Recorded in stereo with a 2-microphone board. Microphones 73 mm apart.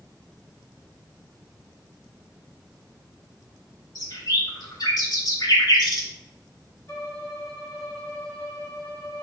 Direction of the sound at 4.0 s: 65° left (ahead or behind).